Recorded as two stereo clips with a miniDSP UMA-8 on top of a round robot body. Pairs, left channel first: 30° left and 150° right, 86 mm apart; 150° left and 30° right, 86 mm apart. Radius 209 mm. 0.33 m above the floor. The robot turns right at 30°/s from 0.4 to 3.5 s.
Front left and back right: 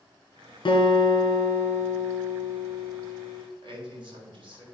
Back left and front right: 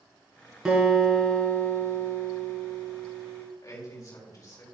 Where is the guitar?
55° left, 3 m; by 3.4 s 140° left, 3 m.